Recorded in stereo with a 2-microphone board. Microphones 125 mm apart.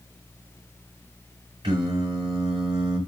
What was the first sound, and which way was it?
Singing, 40° right (ahead or behind).